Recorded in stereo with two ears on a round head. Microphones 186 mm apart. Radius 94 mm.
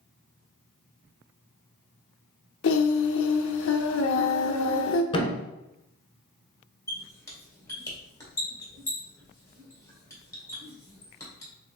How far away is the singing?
About 0.5 m.